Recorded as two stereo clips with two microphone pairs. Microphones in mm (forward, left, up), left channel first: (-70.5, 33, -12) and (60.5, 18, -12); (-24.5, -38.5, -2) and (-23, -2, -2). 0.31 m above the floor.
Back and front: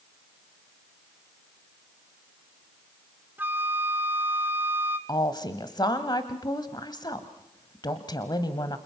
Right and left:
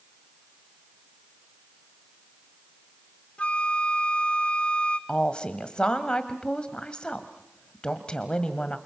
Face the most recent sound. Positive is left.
turn(degrees=-145)